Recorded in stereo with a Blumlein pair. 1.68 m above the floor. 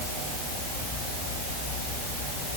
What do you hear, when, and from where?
Only background noise.